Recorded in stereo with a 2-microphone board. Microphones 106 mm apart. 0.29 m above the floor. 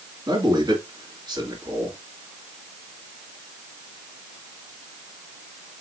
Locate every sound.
0.3 s a man speaking: 40° right (ahead or behind), 2.5 m